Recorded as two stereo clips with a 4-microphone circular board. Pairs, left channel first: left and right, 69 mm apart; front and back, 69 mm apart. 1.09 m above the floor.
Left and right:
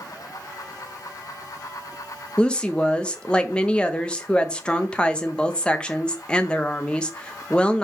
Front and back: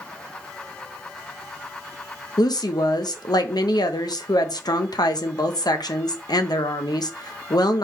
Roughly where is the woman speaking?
Ahead.